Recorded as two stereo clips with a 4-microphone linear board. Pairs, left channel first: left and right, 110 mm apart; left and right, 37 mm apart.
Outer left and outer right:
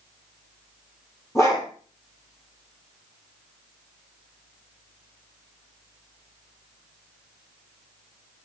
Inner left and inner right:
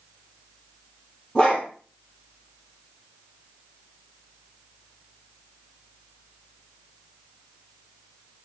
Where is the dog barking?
25° left (ahead or behind), 4 m.